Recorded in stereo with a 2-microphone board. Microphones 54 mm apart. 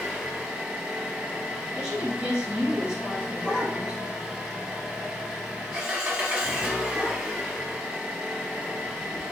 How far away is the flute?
No flute in this recording.